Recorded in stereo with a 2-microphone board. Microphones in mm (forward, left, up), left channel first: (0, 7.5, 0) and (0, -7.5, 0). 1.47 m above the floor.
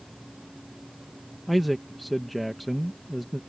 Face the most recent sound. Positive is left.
turn(degrees=0)  # may be behind; listen again after turning